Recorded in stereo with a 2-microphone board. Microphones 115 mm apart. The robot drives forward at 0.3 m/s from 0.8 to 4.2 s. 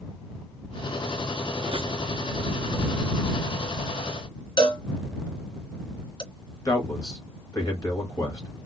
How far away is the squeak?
About 0.9 m.